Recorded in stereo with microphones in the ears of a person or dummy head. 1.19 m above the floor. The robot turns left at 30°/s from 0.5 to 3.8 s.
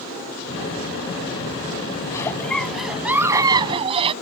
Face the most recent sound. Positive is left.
turn(degrees=-30)